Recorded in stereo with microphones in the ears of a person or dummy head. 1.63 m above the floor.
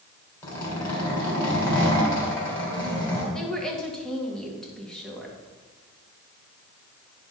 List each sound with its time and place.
0.4 s a zipper: 15° left (ahead or behind), 3.5 m
3.3 s a woman speaking: centre (ahead or behind), 1.9 m